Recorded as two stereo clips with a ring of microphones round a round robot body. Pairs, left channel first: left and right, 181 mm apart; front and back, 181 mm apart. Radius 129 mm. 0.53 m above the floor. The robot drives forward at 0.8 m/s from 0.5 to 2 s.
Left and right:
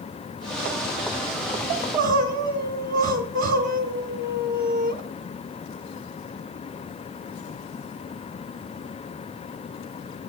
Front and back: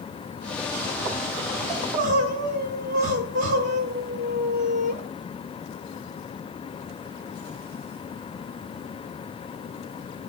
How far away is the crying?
About 0.6 m.